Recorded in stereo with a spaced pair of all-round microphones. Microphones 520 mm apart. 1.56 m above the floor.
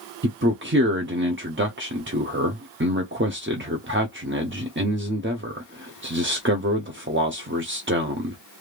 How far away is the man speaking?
About 0.5 m.